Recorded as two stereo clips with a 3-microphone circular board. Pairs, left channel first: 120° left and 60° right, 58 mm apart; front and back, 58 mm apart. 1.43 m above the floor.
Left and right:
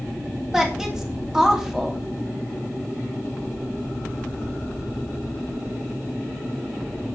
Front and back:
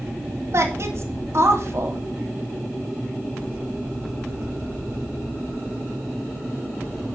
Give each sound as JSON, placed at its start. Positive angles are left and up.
{"t": 0.5, "sound": "a woman speaking", "azimuth_deg": -145, "distance_m": 2.5}